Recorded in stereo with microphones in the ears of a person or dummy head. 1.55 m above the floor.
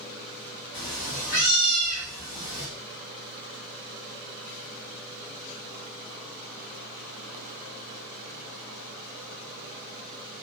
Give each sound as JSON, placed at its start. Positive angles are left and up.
{"t": 0.7, "sound": "a cat meowing", "side_deg": 15, "distance_m": 1.1}